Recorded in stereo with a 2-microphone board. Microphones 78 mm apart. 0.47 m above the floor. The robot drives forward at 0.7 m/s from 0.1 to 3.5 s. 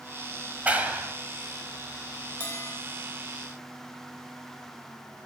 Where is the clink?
No clink in this recording.